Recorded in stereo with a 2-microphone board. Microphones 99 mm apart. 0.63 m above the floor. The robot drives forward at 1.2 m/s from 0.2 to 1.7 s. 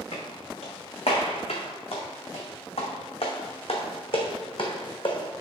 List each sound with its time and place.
0.1 s footsteps: 80° left, 3 m; by 5.4 s 50° left (ahead or behind), 2.5 m